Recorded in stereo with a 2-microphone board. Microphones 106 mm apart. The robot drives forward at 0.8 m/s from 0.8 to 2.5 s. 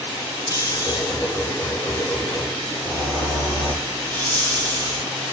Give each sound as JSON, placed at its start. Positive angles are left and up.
{"t": 0.5, "sound": "snoring", "side_deg": 35, "distance_m": 0.6}